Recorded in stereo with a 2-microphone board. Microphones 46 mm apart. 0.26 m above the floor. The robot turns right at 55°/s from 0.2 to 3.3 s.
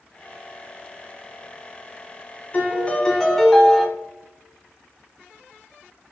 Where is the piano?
130° left, 0.9 m; by 3.9 s 170° left, 0.9 m.